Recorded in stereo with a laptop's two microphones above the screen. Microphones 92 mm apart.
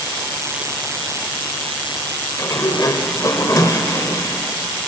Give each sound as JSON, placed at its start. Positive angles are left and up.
{"t": 2.4, "sound": "a sliding door", "side_deg": 40, "distance_m": 0.8}